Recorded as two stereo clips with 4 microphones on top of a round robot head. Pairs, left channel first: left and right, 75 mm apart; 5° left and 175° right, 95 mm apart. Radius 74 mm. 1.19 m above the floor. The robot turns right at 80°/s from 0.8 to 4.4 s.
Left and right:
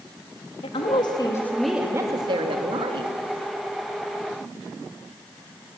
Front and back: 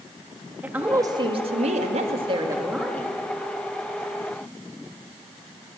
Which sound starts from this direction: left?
A woman speaking, at 0.6 s.